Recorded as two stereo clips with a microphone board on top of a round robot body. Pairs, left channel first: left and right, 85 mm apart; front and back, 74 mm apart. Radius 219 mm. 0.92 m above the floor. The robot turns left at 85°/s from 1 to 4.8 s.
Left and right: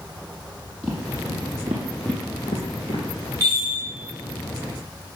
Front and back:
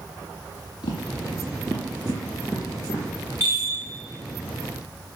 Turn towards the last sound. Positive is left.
turn(degrees=110)